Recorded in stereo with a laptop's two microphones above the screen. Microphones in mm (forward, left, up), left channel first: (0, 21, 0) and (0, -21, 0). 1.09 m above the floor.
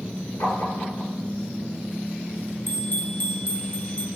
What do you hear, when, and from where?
0.4 s tapping: 80° left, 6 m
2.7 s a bell: 50° left (ahead or behind), 1.3 m